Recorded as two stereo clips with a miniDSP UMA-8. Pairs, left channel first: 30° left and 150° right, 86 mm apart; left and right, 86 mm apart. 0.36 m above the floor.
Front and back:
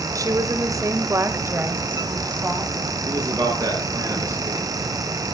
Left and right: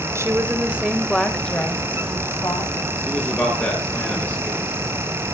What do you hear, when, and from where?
0.1 s a woman speaking: 130° right, 1.8 m; by 2.8 s 135° left, 3 m
3.0 s a man speaking: 160° left, 7.5 m